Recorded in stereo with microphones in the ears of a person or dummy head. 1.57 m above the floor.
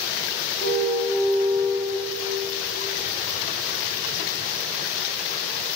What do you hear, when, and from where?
0.6 s a car horn: 75° left (ahead or behind), 6.5 m